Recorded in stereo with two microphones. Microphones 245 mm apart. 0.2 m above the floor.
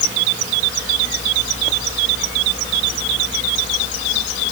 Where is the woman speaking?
I don't hear a woman speaking.